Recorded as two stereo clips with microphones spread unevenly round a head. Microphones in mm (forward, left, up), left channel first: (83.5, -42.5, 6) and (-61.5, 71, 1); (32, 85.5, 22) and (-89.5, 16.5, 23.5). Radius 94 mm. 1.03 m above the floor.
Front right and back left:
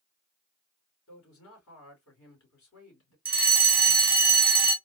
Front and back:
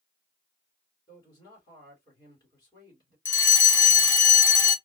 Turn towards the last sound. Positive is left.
turn(degrees=70)